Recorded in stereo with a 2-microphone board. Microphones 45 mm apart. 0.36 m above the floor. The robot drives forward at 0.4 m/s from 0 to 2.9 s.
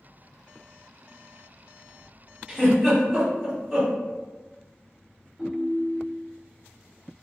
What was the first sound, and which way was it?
A giggle, 15° right (ahead or behind).